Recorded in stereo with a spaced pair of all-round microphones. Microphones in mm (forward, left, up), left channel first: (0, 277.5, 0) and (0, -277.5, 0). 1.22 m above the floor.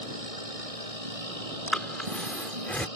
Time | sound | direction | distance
0.0 | a machine running | 85° right | ?
1.7 | breathing | centre (ahead or behind) | ?